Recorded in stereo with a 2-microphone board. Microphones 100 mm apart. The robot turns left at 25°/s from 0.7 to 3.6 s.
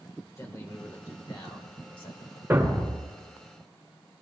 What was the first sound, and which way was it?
A man speaking, 150° left.